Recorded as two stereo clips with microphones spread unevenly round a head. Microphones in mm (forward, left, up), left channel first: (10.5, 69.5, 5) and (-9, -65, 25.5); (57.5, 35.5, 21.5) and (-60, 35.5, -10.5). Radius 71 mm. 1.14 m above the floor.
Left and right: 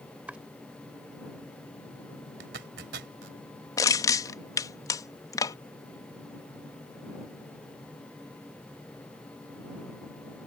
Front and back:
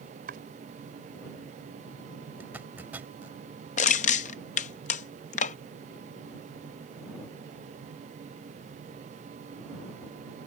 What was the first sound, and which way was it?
Chopping, 175° right.